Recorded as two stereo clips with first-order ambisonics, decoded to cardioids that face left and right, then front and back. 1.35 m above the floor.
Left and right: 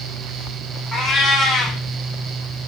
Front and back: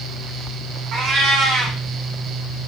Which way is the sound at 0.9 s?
175° left.